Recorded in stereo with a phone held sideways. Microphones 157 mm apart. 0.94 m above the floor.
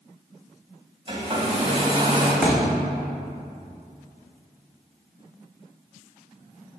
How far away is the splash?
No splash in this recording.